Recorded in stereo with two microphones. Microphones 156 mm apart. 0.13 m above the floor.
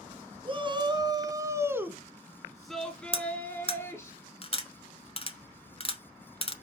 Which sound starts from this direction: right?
A shout, at 0.5 s.